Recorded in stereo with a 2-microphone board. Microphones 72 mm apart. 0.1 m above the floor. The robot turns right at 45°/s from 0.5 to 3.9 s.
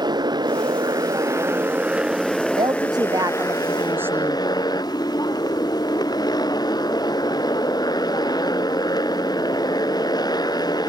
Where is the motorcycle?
85° right; by 10.9 s 70° left.